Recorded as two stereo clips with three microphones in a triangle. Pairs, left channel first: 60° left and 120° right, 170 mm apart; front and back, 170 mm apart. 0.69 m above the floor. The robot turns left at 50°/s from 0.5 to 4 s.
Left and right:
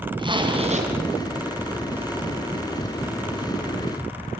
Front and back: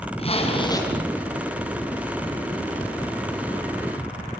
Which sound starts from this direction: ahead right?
A zipper, at 0.2 s.